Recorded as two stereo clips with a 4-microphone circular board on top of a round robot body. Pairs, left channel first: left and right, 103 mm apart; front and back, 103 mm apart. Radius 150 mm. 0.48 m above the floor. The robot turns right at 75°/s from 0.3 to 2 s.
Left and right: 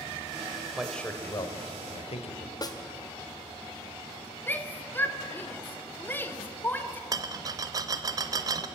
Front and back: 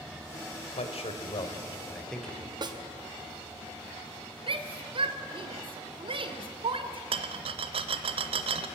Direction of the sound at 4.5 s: 160° left.